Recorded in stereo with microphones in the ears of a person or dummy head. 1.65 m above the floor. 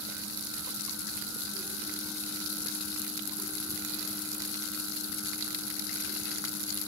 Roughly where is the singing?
I don't hear singing.